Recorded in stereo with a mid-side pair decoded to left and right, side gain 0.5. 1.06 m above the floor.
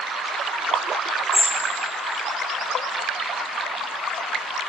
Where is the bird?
10° left, 1.0 m.